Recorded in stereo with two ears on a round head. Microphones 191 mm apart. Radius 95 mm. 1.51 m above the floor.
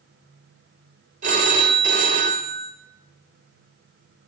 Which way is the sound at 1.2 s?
35° right (ahead or behind).